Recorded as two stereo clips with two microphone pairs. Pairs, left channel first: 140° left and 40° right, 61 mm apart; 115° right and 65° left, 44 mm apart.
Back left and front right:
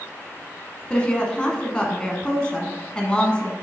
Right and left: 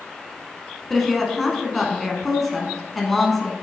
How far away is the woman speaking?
About 1.2 m.